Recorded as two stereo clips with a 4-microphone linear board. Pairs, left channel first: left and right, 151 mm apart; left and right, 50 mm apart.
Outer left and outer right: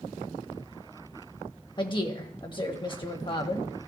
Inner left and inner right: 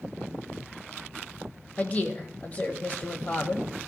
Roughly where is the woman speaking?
Left.